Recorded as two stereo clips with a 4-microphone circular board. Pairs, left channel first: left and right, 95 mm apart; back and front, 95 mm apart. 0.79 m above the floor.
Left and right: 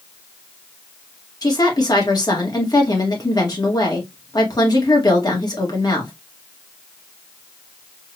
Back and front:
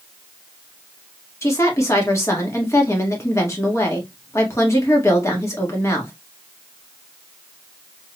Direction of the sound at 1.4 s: 130° left.